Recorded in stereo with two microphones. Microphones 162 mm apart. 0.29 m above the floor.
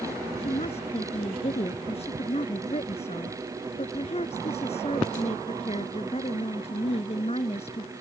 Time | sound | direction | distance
0.4 | a woman speaking | 40° left (ahead or behind) | ?